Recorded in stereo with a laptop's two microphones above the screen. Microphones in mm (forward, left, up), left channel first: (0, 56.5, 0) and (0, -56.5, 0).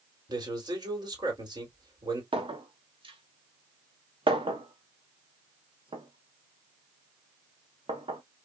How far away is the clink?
About 1.0 m.